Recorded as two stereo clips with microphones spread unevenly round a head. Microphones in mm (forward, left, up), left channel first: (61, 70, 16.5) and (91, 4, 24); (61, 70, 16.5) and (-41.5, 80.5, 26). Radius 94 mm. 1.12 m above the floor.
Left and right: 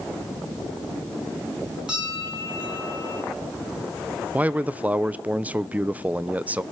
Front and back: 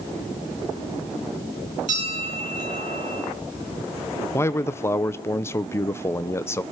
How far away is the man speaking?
About 0.6 m.